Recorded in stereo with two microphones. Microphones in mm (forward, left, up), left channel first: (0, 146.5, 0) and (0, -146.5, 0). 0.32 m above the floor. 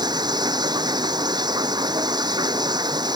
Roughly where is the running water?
Centre.